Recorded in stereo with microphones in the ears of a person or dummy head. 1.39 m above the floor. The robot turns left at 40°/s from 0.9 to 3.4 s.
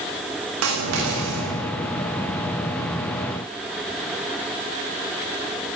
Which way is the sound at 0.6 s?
80° right.